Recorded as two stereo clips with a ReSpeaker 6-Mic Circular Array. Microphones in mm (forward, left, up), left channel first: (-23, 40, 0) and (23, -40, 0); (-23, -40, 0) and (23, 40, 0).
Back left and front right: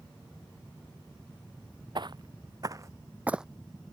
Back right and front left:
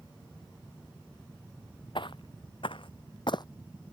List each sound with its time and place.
1.9 s footsteps: 95° right; by 3.5 s 145° right